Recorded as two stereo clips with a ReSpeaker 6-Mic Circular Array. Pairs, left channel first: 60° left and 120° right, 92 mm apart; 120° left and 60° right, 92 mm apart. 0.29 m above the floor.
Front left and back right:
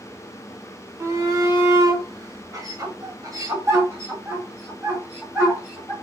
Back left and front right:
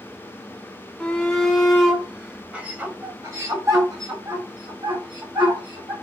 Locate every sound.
1.0 s a shout: 165° right, 1.7 m; by 5.9 s 50° right, 2.0 m